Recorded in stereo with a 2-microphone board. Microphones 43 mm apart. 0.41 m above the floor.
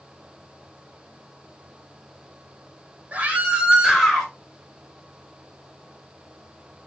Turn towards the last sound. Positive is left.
turn(degrees=5)  # may be behind; listen again after turning